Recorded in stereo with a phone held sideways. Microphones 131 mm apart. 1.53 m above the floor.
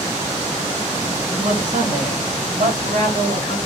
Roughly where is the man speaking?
Right.